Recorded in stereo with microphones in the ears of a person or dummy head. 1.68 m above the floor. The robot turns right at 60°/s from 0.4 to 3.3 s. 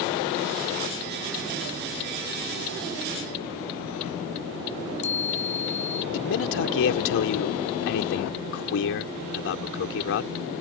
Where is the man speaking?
70° left (ahead or behind).